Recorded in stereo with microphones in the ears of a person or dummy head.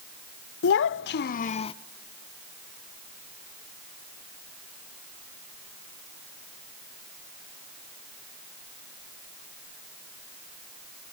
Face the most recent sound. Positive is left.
turn(degrees=30)  # may be behind; listen again after turning